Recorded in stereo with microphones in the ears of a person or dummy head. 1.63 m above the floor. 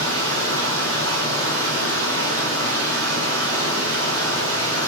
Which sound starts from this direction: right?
Running water, at 0.0 s.